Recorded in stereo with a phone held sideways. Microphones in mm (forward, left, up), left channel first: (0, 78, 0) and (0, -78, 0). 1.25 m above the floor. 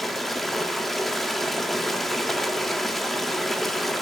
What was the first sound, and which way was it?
Running water, centre (ahead or behind).